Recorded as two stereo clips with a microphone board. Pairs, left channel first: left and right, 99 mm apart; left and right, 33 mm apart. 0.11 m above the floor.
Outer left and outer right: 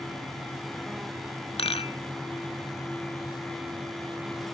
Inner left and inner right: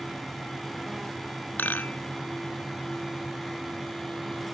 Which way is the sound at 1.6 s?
75° left (ahead or behind).